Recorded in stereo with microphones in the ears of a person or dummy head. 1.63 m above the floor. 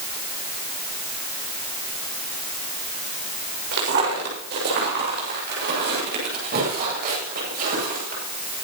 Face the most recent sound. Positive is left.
turn(degrees=-50)  # may be behind; listen again after turning